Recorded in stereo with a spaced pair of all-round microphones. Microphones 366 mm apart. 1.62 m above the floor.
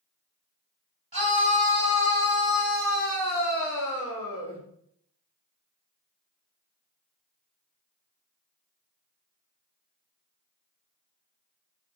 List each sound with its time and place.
1.1 s a scream: 70° right (ahead or behind), 1.2 m; by 4.6 s 25° right (ahead or behind), 2 m